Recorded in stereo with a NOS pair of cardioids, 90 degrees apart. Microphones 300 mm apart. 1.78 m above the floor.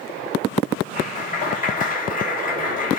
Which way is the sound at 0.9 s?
30° left.